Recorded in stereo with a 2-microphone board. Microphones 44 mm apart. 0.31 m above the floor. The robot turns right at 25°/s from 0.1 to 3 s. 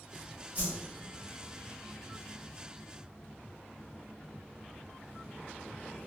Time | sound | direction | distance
0.6 | a whoosh | 40° right (ahead or behind) | 1.9 m